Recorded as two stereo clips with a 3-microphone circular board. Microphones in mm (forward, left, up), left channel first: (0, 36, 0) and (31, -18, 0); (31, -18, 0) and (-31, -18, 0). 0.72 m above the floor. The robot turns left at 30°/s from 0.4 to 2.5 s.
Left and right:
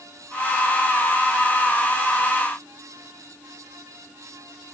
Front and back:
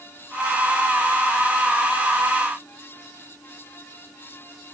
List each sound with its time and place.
Only background noise.